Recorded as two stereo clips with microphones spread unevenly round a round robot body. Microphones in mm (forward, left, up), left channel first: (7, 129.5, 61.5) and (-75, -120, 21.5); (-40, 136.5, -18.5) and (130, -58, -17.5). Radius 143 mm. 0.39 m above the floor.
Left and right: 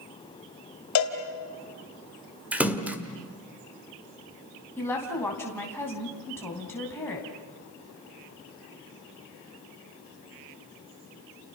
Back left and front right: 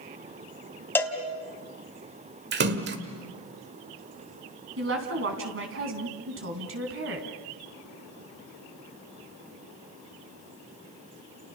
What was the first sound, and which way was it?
A cowbell, 50° left.